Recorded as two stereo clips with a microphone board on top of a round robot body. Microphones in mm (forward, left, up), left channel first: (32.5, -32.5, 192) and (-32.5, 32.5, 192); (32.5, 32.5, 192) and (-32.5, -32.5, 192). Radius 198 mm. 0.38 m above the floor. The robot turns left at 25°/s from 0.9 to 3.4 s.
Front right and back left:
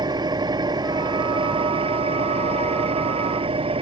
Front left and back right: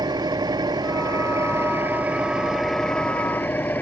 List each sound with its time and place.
0.0 s an engine running: straight behind; by 3.8 s 115° left